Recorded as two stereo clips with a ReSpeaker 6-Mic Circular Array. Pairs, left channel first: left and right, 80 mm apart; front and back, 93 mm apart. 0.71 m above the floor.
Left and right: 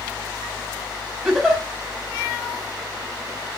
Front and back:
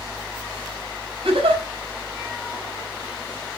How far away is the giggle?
About 4.5 m.